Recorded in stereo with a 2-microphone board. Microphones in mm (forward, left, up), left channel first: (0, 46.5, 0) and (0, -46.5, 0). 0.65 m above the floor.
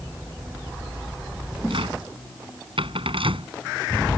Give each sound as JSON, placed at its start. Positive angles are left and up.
{"t": 1.7, "sound": "a cupboard door", "side_deg": -80}